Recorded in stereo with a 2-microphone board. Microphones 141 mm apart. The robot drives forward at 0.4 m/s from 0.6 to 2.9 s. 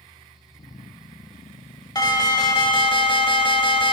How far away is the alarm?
About 0.9 m.